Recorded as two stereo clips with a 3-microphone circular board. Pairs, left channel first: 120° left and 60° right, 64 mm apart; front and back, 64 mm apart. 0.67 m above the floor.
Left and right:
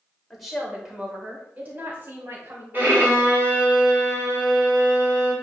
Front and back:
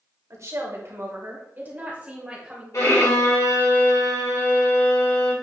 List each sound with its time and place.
0.3 s a woman speaking: 155° right, 2.5 m; by 2.6 s 100° right, 3 m
2.7 s a violin: 5° right, 2.5 m